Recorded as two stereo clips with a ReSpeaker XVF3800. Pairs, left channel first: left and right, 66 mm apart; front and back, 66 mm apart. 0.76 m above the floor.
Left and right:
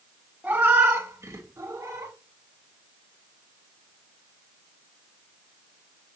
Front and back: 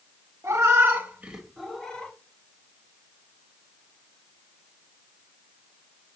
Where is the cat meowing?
150° right, 0.9 m; by 2.1 s 65° right, 0.8 m.